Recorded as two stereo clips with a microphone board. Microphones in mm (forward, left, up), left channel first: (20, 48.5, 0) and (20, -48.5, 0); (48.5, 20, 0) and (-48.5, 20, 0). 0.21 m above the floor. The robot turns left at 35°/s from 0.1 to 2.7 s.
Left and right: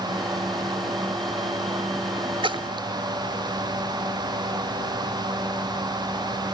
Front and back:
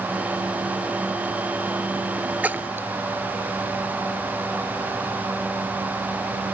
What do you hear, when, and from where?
2.4 s a splash: 110° right, 0.5 m; by 2.9 s 120° right, 0.5 m